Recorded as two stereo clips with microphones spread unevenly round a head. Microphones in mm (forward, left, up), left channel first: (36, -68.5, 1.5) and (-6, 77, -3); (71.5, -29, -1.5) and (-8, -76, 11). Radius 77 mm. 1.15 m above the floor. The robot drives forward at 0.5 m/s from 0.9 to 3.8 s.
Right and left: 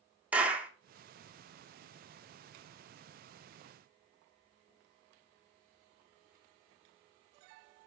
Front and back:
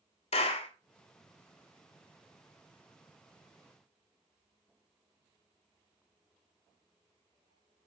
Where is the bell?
No bell in this recording.